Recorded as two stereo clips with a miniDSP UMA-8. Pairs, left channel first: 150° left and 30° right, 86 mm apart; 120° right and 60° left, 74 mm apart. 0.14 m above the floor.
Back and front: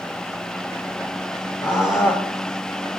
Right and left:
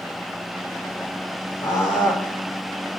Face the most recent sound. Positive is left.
turn(degrees=-165)